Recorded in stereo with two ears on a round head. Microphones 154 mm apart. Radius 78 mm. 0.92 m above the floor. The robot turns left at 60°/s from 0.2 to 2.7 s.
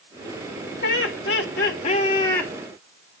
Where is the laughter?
105° left, 3.5 m; by 2.5 s 5° left, 3.5 m.